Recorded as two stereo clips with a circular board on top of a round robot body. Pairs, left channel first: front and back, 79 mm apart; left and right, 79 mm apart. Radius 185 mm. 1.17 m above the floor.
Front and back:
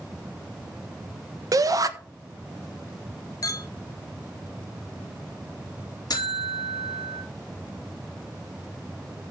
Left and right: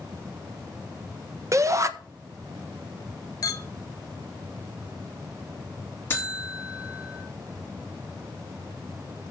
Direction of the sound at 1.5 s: 140° right.